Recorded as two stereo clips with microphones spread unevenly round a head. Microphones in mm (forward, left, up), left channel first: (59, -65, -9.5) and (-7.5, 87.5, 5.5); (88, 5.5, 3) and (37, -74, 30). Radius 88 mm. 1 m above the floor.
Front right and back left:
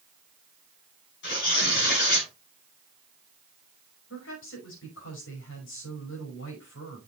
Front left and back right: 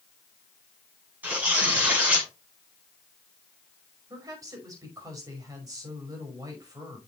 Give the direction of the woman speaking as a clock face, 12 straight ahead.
2 o'clock.